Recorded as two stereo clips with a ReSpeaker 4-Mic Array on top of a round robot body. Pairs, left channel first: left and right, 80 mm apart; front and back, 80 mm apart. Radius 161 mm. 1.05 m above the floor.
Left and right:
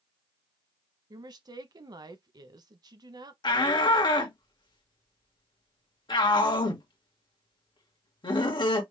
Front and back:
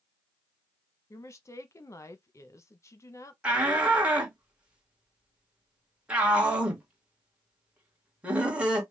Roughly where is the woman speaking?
Ahead right.